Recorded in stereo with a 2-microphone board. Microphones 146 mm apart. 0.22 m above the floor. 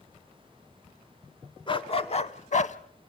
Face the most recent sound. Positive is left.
turn(degrees=55)  # may be behind; listen again after turning